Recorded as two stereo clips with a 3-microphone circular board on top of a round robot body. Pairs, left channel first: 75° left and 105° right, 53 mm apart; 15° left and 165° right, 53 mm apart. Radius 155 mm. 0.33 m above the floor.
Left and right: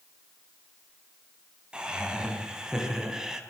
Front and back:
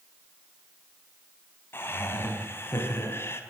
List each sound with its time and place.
1.7 s laughter: 30° right, 5 m; by 3.4 s 25° right, 4 m